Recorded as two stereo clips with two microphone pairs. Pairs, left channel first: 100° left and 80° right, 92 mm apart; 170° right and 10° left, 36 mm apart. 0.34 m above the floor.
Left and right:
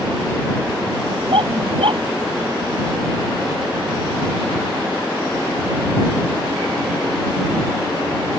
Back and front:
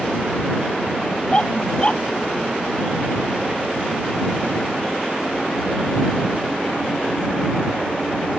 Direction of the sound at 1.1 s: 105° right.